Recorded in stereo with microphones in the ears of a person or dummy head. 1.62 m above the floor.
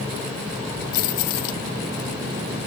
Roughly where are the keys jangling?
Left.